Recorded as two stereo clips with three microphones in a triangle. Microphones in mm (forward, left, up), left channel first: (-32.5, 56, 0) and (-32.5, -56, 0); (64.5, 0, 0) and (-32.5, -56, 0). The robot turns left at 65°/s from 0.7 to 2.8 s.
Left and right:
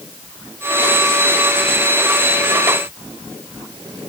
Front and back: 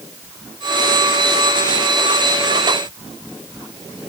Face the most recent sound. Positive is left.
No sound to turn to.